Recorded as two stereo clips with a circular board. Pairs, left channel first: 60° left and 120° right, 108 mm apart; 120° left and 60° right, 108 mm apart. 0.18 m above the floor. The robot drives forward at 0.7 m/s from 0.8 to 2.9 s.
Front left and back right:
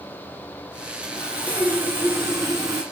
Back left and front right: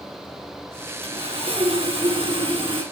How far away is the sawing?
About 2.5 m.